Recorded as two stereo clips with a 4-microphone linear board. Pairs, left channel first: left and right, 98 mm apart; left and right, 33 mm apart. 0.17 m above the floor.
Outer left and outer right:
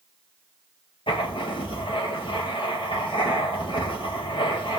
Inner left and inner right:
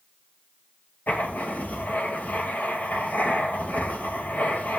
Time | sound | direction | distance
1.1 | writing | 70° left (ahead or behind) | 2.5 m